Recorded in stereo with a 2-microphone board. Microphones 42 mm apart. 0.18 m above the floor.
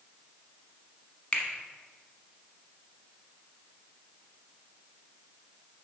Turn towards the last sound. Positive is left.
turn(degrees=25)  # may be behind; listen again after turning